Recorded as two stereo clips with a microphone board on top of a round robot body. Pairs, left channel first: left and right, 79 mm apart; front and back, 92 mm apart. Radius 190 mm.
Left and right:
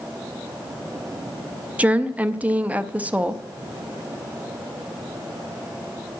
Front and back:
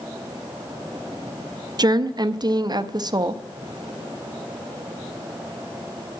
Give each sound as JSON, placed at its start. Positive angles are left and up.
{"t": 1.8, "sound": "a woman speaking", "azimuth_deg": -155, "distance_m": 0.9}